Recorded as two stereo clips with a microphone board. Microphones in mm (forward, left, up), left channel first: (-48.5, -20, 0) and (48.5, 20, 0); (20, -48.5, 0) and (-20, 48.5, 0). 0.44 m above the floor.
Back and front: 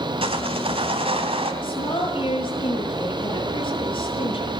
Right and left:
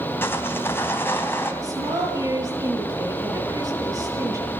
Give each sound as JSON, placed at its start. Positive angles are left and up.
{"t": 0.2, "sound": "sawing", "azimuth_deg": 0, "distance_m": 3.0}
{"t": 1.6, "sound": "a woman speaking", "azimuth_deg": 165, "distance_m": 9.0}